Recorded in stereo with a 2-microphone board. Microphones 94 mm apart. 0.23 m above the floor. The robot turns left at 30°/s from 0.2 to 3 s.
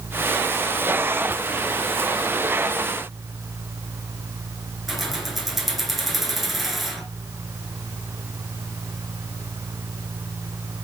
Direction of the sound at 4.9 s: Centre (ahead or behind).